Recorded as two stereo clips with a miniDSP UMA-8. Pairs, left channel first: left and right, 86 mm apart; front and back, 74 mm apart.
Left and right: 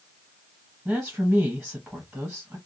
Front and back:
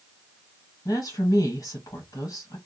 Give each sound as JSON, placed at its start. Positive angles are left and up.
{"t": 0.8, "sound": "a woman speaking", "azimuth_deg": -5, "distance_m": 1.5}